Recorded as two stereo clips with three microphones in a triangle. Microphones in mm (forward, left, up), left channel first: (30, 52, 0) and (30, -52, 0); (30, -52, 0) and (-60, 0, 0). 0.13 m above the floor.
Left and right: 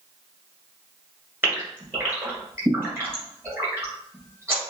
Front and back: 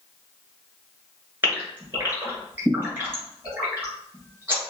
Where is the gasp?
150° right, 1.8 m.